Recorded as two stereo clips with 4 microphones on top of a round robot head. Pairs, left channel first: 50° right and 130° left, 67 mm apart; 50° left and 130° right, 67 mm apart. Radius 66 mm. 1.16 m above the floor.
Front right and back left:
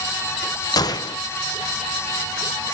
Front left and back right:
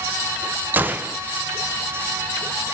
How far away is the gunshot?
About 0.5 m.